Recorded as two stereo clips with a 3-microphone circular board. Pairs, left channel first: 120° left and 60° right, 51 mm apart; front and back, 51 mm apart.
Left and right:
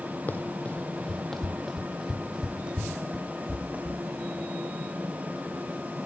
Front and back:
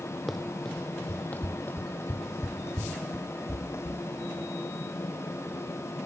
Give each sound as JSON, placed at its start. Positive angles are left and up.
{"t": 0.3, "sound": "running footsteps", "azimuth_deg": 90, "distance_m": 1.4}